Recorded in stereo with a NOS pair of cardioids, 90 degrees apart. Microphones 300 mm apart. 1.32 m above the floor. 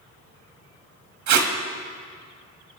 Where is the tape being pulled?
70° right, 1.5 m.